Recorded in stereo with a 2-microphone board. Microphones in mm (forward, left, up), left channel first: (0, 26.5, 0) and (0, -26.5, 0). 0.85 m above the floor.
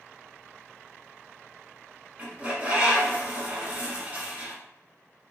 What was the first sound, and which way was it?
A bird, 25° right (ahead or behind).